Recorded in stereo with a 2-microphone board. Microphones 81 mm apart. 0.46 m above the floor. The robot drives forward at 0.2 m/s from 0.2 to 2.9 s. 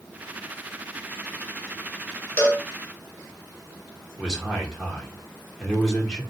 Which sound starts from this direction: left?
A cowbell, at 2.4 s.